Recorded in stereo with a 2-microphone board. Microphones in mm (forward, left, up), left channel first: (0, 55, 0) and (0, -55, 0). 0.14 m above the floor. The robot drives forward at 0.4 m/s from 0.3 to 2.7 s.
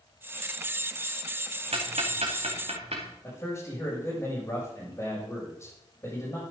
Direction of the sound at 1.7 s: 65° right (ahead or behind).